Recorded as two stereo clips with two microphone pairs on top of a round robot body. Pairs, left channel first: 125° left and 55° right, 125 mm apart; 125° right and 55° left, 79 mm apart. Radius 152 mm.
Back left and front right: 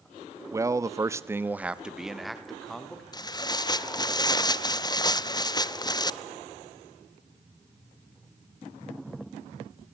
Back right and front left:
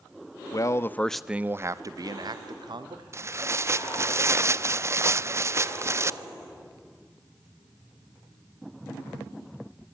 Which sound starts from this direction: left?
Tearing paper, at 3.1 s.